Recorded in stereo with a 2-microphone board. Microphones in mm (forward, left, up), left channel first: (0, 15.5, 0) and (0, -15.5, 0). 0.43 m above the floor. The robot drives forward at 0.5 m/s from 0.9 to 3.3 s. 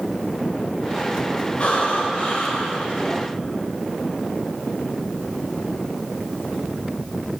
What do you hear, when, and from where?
1.6 s breathing: 45° left (ahead or behind), 1.4 m; by 2.9 s 35° left (ahead or behind), 1.8 m